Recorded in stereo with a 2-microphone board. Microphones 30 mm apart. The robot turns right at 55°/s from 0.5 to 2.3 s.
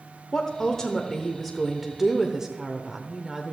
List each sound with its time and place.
0.3 s a woman speaking: 15° left (ahead or behind), 0.8 m; by 3.5 s 20° right (ahead or behind), 0.8 m